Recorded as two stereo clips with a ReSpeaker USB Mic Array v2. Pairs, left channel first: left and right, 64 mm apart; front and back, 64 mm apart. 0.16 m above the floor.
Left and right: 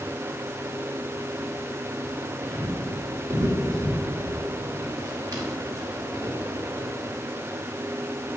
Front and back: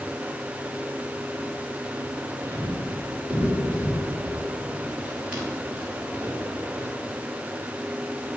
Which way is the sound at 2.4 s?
125° right.